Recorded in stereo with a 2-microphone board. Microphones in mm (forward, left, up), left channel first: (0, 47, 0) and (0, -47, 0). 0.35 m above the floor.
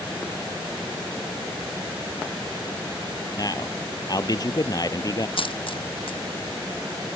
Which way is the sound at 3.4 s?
45° left (ahead or behind).